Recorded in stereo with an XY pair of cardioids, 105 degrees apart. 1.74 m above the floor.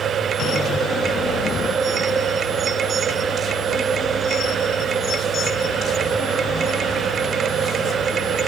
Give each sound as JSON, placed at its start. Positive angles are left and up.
{"t": 0.0, "sound": "a machine running", "azimuth_deg": -55, "distance_m": 1.5}